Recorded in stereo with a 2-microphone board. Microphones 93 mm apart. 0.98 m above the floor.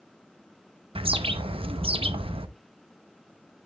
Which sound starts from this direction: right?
A bird, at 0.9 s.